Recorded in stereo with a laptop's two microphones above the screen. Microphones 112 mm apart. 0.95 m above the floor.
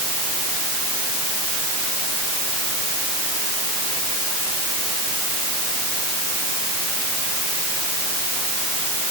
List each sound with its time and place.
Only background noise.